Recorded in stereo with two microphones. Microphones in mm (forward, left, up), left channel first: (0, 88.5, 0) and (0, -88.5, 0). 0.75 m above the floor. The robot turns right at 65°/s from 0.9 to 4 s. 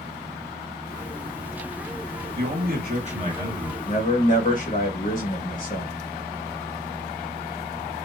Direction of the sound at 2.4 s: 95° right.